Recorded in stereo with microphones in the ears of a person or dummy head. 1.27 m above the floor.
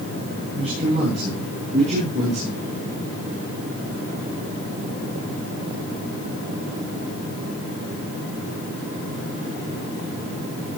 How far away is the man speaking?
About 10 m.